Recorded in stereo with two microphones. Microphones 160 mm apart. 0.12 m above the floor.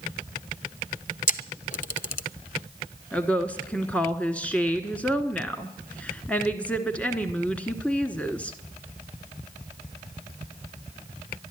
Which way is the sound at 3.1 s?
10° left (ahead or behind).